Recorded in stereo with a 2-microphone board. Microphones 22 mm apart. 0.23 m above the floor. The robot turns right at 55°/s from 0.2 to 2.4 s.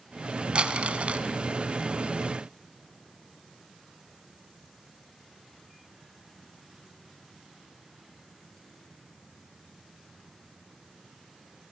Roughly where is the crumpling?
Behind right.